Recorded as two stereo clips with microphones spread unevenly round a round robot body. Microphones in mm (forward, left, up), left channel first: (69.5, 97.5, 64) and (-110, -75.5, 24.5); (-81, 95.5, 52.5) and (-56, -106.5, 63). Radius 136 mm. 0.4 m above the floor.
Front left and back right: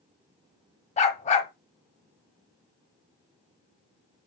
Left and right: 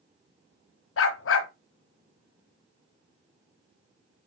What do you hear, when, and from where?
1.0 s a dog barking: 110° left, 1.1 m